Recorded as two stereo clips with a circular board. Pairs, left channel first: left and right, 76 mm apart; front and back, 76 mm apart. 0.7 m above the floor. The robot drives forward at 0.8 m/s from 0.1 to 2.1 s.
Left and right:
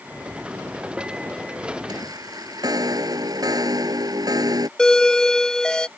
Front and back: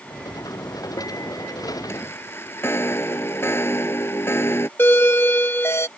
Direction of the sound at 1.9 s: 55° right.